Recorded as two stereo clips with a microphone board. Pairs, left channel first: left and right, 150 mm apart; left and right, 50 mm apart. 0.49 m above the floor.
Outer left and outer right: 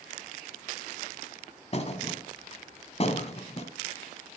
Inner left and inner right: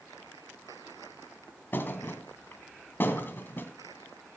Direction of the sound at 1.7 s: 45° left (ahead or behind).